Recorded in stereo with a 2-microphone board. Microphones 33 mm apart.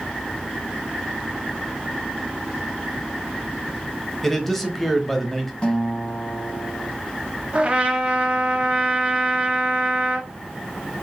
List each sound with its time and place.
4.2 s a man speaking: 5° left (ahead or behind), 1.0 m
5.6 s a guitar: 30° left (ahead or behind), 1.7 m
7.5 s a trumpet: 35° right (ahead or behind), 1.0 m